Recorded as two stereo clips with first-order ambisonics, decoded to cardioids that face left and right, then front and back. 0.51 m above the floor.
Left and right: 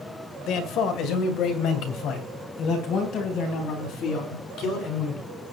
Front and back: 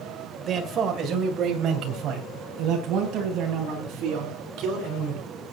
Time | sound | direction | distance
0.5 | a man speaking | 125° left | 1.9 m